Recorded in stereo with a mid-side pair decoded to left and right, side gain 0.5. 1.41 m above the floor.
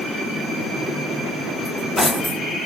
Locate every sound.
1.6 s cutlery clinking: 15° left, 1.8 m